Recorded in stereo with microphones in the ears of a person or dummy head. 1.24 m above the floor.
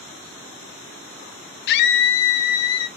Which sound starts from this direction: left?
A scream, at 1.7 s.